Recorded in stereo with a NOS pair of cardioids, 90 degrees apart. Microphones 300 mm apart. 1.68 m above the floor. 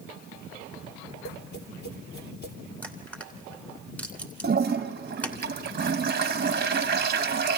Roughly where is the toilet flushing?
Ahead right.